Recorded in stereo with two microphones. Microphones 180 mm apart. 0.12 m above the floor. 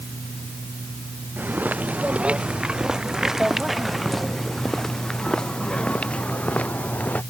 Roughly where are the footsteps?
Centre.